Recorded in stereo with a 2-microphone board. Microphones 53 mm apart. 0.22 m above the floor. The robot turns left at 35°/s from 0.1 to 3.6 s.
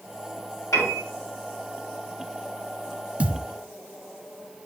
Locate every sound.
0.7 s a piano: 70° left (ahead or behind), 4.5 m
3.2 s a thud: 25° right (ahead or behind), 0.8 m; by 3.5 s 15° right (ahead or behind), 0.8 m